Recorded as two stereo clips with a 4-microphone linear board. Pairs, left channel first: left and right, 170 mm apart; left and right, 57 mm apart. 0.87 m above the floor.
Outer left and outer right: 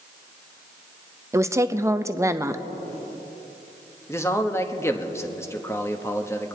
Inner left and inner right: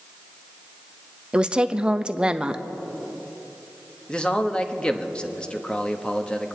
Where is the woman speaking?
15° right (ahead or behind), 0.6 m.